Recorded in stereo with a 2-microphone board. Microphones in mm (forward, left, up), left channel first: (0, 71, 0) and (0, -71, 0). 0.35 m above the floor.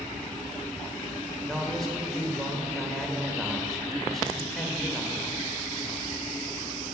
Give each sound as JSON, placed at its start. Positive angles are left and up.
{"t": 1.4, "sound": "a man speaking", "side_deg": 5, "distance_m": 0.9}